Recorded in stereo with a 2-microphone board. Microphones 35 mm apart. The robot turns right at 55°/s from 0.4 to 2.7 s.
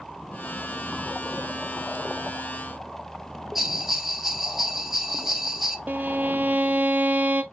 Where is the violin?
50° right (ahead or behind), 0.5 m.